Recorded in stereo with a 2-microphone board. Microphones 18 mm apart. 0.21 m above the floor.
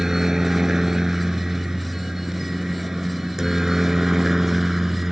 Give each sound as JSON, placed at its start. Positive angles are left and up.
{"t": 0.0, "sound": "a helicopter", "side_deg": -30}